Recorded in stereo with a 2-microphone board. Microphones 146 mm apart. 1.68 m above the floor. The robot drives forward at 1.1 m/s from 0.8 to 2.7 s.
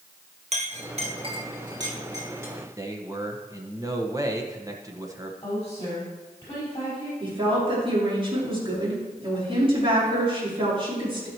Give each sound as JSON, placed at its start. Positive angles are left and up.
{"t": 0.5, "sound": "a clink", "side_deg": -50, "distance_m": 1.1}
{"t": 2.8, "sound": "a man speaking", "side_deg": -20, "distance_m": 1.3}
{"t": 5.4, "sound": "a woman speaking", "side_deg": 25, "distance_m": 4.5}
{"t": 7.2, "sound": "a woman speaking", "side_deg": -35, "distance_m": 4.5}